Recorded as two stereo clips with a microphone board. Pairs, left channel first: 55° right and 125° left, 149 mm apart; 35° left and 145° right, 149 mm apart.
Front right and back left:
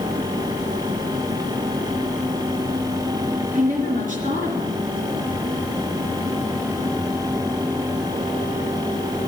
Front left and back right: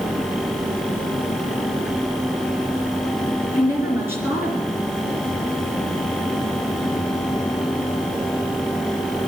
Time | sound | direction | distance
3.5 | a woman speaking | 145° left | 3 m